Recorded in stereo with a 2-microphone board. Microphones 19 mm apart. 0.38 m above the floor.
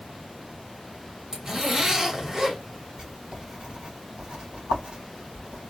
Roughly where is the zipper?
Right.